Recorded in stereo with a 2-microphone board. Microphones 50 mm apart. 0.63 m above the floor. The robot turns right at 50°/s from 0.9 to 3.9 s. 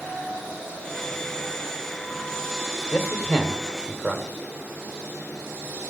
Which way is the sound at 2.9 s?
50° left (ahead or behind).